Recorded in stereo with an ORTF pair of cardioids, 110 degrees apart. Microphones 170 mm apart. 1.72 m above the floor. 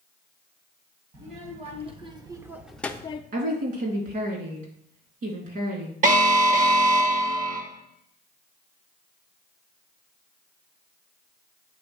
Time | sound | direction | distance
1.1 | a child speaking | 45° right | 2 m
3.3 | a woman speaking | 55° right | 3.5 m
6.0 | an alarm | 50° right | 1.7 m